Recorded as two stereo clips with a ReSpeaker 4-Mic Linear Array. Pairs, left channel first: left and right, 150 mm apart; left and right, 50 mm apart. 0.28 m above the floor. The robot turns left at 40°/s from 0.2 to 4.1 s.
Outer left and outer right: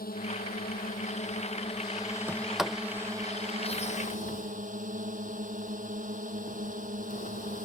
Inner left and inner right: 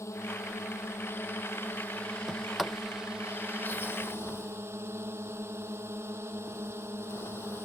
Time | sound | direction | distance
0.0 | a drone | 80° left | ?
2.3 | a sliding door | 15° right (ahead or behind) | ?